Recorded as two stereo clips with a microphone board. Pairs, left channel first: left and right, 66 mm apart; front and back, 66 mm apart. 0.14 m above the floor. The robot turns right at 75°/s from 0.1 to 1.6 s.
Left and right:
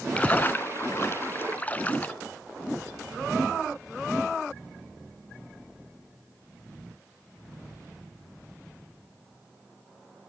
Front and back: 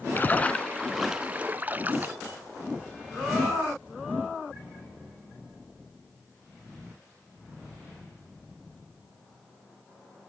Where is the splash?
30° left, 0.6 m; by 2.1 s 140° left, 0.6 m.